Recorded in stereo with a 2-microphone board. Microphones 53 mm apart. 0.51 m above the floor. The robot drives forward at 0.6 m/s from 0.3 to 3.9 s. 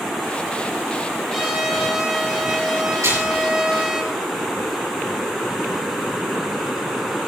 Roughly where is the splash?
Right.